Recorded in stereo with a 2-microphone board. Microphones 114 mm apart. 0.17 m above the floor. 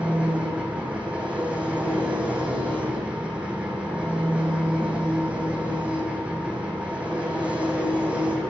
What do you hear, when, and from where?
0.0 s an engine running: 10° right (ahead or behind), 3 m